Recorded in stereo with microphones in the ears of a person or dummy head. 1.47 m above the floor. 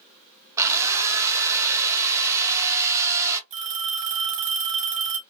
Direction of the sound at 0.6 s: 15° right (ahead or behind).